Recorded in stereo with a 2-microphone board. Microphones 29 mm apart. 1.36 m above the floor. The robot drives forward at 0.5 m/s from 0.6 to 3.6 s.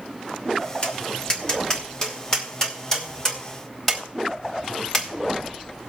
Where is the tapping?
40° left (ahead or behind), 1.5 m; by 5.9 s 20° left (ahead or behind), 2.5 m.